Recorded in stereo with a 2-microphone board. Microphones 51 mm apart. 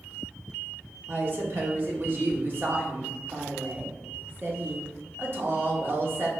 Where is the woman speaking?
45° right (ahead or behind), 0.9 m.